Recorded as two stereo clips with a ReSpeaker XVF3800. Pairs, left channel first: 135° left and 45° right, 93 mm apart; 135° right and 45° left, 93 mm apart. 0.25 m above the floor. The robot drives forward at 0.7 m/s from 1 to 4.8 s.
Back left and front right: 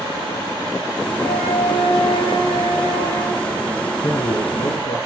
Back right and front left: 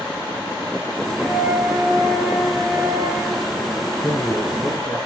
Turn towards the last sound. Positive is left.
turn(degrees=135)